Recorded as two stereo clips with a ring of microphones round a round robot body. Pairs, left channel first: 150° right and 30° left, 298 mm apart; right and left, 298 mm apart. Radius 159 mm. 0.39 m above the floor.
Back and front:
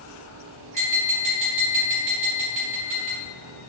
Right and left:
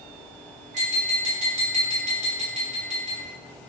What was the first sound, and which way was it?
Tapping, 35° left.